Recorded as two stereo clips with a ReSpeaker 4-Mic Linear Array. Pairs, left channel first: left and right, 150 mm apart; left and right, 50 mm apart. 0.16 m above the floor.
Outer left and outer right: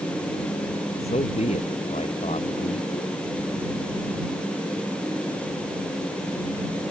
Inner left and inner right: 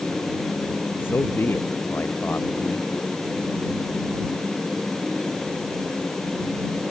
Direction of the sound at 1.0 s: 45° left (ahead or behind).